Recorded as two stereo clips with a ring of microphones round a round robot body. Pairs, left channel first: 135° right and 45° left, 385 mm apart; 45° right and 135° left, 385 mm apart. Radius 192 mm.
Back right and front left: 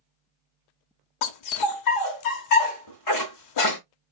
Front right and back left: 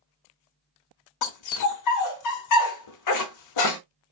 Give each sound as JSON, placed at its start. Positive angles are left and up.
{"t": 1.2, "sound": "a dog barking", "azimuth_deg": -90, "distance_m": 1.0}